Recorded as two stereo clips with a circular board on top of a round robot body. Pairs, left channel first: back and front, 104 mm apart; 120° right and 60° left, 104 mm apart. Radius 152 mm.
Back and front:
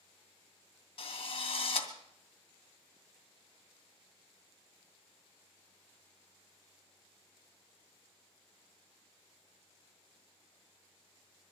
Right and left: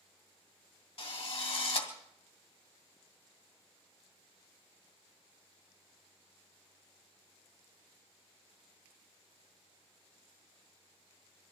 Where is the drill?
145° right, 2.5 m.